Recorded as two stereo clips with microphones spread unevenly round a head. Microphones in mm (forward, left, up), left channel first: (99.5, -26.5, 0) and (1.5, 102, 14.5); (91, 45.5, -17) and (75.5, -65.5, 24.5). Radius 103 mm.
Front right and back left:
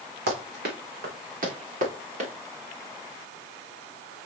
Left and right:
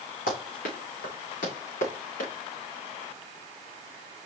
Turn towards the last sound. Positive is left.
turn(degrees=85)